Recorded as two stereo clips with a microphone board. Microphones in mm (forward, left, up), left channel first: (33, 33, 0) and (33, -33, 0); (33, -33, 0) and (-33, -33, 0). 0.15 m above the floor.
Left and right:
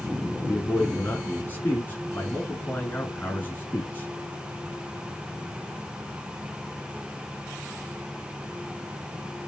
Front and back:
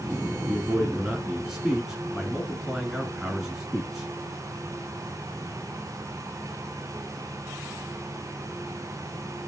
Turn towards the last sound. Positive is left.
turn(degrees=100)